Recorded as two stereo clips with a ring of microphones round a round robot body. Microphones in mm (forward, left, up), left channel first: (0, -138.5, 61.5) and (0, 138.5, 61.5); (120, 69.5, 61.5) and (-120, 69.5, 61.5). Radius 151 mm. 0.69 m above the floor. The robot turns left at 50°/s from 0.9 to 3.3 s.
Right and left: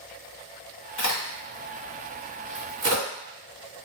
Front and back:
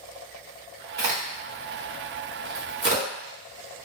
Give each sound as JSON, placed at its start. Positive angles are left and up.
{"t": 1.0, "sound": "a crack", "azimuth_deg": -120, "distance_m": 1.8}